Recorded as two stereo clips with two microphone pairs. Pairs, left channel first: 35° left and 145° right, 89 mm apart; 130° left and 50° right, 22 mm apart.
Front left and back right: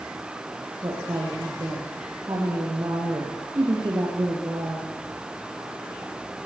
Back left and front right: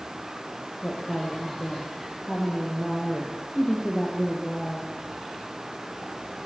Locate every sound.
0.8 s a woman speaking: 170° left, 8 m